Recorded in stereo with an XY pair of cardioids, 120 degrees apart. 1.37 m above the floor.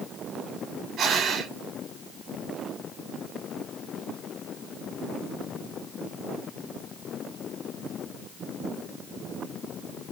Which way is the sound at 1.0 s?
60° right.